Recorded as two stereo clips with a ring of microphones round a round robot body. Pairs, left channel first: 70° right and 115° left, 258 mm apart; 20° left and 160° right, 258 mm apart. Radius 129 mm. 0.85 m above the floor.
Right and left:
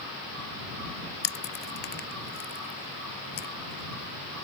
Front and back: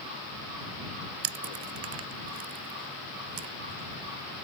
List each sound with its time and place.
1.2 s chewing: 120° right